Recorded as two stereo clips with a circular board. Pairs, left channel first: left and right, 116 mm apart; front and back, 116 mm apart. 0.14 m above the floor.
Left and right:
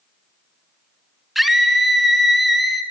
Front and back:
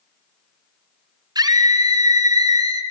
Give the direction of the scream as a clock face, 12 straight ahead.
6 o'clock.